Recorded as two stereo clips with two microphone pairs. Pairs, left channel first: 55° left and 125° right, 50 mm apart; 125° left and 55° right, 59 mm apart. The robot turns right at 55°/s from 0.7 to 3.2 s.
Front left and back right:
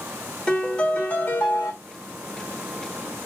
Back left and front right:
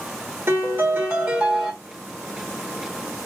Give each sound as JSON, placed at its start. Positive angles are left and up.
{"t": 0.5, "sound": "a piano", "azimuth_deg": -20, "distance_m": 1.8}